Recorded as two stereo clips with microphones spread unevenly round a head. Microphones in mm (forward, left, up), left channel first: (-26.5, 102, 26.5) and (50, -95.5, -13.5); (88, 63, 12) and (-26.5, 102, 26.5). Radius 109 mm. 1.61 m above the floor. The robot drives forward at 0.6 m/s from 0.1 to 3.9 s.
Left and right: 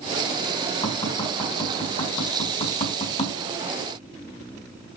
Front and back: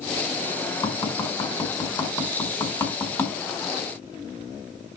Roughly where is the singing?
I don't hear singing.